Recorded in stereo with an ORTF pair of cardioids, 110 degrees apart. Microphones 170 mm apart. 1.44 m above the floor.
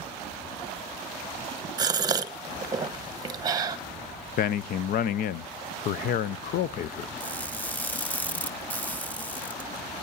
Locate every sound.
1.8 s a gasp: 25° right, 1.1 m
4.4 s a man speaking: 60° left, 0.6 m
7.2 s crushing: 10° left, 1.2 m